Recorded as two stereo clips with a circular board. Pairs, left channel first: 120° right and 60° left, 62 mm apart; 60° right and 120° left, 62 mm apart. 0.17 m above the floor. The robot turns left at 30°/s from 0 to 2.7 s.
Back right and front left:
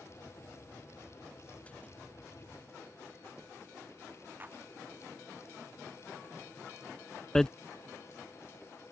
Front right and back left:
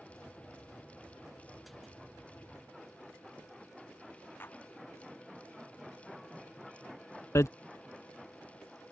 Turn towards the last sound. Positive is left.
turn(degrees=-40)